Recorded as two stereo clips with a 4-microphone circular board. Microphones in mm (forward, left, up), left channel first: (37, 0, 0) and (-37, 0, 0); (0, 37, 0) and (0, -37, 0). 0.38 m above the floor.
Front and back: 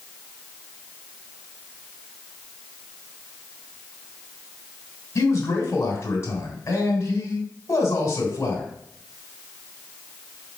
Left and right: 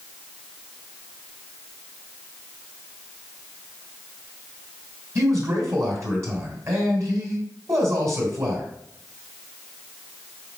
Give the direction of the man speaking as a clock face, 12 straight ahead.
2 o'clock.